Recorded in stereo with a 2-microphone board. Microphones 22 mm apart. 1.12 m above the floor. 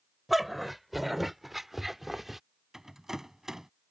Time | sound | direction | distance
0.3 | a dog barking | 5° right (ahead or behind) | ?
2.7 | a rattle | 20° right (ahead or behind) | ?